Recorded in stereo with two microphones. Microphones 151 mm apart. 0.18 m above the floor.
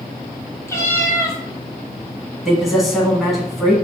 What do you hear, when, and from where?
0.7 s a cat meowing: 20° left (ahead or behind), 0.9 m
2.5 s a man speaking: centre (ahead or behind), 1.2 m